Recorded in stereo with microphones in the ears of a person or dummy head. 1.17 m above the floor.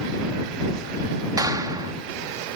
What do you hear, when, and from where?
1.4 s a clap: 15° right (ahead or behind)